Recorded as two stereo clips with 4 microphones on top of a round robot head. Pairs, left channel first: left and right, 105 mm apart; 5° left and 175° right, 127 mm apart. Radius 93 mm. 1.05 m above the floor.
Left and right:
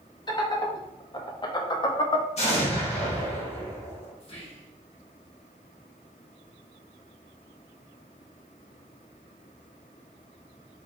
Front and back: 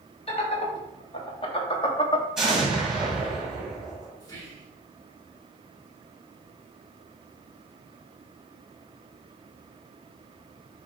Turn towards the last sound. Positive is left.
turn(degrees=65)